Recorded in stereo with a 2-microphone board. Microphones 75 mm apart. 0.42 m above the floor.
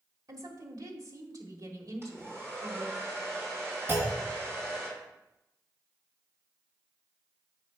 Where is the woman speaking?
50° right (ahead or behind), 1.2 m.